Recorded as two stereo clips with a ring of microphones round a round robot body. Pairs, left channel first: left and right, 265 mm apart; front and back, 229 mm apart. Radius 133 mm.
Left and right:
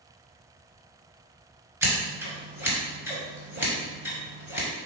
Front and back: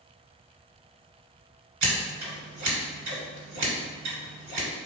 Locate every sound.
1.8 s scissors: 170° right, 1.7 m